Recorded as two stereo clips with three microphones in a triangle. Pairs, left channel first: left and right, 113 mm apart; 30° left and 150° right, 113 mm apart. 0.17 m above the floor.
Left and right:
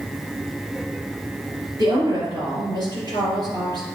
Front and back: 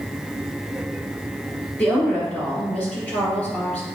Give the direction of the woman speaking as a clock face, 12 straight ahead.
2 o'clock.